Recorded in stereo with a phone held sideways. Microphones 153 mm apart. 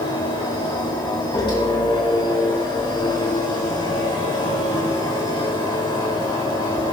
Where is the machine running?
30° left (ahead or behind), 4 m.